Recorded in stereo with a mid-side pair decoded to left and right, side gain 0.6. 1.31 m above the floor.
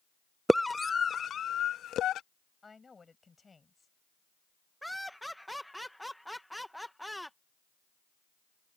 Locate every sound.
0.5 s a scream: 5° right; by 2.2 s 55° left
2.6 s a woman speaking: 20° left
4.8 s laughter: straight ahead